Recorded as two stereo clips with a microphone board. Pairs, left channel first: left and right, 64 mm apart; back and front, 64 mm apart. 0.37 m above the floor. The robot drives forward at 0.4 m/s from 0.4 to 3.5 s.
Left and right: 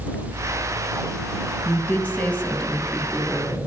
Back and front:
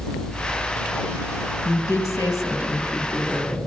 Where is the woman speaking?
155° left, 2.5 m; by 3.6 s 160° left, 3.5 m.